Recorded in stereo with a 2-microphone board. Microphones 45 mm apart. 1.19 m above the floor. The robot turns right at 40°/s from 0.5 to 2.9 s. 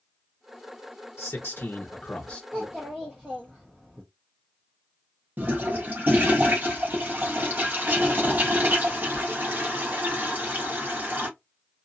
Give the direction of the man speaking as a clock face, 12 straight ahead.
8 o'clock.